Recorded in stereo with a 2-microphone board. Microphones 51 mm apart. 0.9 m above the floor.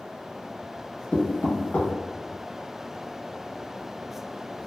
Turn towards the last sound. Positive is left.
turn(degrees=25)  # may be behind; listen again after turning